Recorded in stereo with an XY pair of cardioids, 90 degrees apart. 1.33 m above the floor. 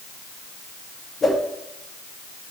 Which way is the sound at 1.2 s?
40° left.